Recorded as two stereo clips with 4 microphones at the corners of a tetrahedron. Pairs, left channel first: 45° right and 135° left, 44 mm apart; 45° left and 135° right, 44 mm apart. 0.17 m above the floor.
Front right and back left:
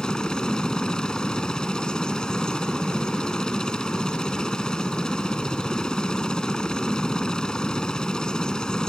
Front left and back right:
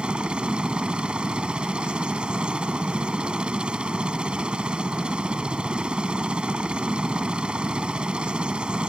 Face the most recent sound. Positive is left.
turn(degrees=-100)